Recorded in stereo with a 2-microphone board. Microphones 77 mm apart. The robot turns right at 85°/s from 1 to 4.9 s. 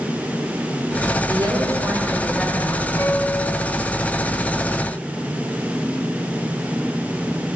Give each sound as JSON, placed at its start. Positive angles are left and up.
{"t": 1.3, "sound": "a woman speaking", "azimuth_deg": -85, "distance_m": 7.0}
{"t": 3.0, "sound": "a piano", "azimuth_deg": 125, "distance_m": 4.5}